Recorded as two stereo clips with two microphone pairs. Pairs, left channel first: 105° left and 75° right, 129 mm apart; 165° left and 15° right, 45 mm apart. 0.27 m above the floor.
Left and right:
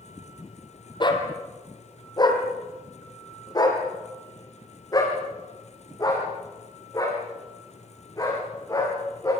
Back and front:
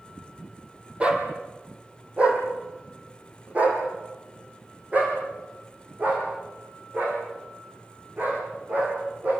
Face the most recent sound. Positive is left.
turn(degrees=40)